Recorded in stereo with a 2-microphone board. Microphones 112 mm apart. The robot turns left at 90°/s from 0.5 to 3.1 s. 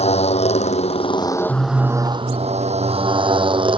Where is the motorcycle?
105° left; by 3.8 s 130° right.